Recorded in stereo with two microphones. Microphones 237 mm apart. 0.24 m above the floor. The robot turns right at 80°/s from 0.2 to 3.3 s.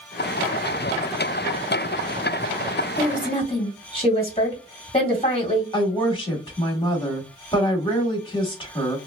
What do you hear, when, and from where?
3.0 s a woman speaking: 10° left (ahead or behind), 1.8 m; by 5.6 s 25° left (ahead or behind), 1.8 m
5.7 s a woman speaking: 20° left (ahead or behind), 1.3 m